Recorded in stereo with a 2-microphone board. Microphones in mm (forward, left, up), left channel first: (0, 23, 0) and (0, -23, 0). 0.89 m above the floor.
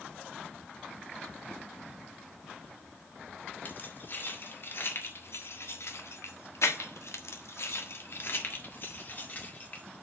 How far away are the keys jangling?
About 2 m.